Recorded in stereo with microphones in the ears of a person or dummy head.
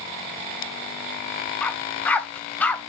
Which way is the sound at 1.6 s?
10° left (ahead or behind).